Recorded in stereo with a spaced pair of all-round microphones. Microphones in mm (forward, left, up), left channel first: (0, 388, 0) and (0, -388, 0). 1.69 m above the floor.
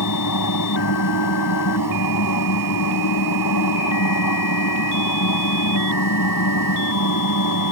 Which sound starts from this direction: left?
A machine running, at 0.0 s.